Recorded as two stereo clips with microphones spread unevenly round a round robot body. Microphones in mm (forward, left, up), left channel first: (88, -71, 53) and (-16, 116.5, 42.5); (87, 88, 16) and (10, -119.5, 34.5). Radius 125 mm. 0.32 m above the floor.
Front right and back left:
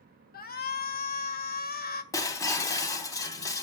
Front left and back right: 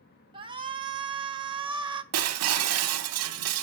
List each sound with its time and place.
0.3 s a shout: 50° right, 1.7 m
2.1 s breaking glass: 135° right, 0.9 m